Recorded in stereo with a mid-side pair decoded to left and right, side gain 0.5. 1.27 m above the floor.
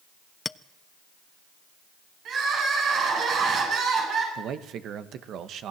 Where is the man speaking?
65° right, 1.7 m.